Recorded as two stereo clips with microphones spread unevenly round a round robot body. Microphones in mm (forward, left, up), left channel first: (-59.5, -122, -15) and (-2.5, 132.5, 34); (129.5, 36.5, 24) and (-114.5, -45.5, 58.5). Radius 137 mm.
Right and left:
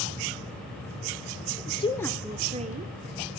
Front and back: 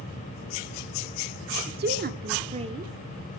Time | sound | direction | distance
1.7 | a woman speaking | 125° right | 0.9 m